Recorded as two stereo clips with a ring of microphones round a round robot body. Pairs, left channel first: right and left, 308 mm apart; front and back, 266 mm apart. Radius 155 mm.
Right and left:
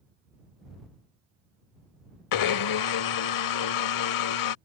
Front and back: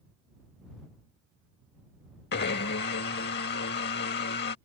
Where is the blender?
60° right.